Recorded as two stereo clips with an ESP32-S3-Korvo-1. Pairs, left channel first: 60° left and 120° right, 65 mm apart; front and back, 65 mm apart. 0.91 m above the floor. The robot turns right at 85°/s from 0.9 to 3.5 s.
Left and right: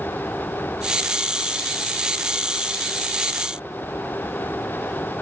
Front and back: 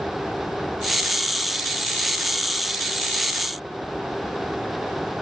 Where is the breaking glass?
I don't hear breaking glass.